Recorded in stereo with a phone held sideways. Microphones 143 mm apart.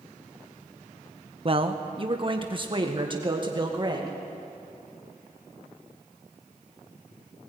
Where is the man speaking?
40° right (ahead or behind), 1.0 m; by 4.2 s 30° right (ahead or behind), 2.5 m.